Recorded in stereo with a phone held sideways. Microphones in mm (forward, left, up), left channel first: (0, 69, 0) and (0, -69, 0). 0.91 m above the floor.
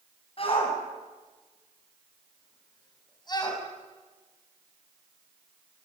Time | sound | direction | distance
0.4 | a shout | 45° left (ahead or behind) | 8 m